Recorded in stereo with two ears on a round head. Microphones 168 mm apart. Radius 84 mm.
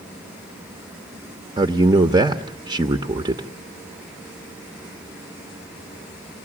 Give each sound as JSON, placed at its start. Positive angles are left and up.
{"t": 1.6, "sound": "a man speaking", "side_deg": -20, "distance_m": 0.9}